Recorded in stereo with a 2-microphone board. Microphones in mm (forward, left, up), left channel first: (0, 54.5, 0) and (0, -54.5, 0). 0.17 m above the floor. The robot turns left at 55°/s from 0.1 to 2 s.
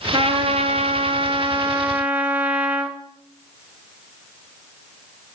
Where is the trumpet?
60° right, 0.8 m; by 3.0 s 165° right, 0.8 m.